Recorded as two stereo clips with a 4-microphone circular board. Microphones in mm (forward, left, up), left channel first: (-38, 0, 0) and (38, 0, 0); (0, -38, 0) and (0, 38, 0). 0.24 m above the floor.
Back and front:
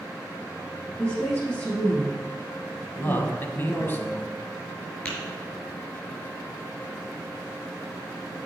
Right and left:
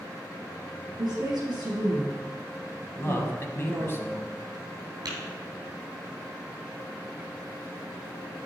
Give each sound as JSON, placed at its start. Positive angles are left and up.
{"t": 1.0, "sound": "a woman speaking", "azimuth_deg": 115, "distance_m": 4.5}
{"t": 3.0, "sound": "a man speaking", "azimuth_deg": -130, "distance_m": 1.3}
{"t": 5.0, "sound": "tapping", "azimuth_deg": 115, "distance_m": 4.0}